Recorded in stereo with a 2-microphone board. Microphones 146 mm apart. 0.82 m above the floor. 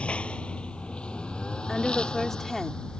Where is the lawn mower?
5° left (ahead or behind).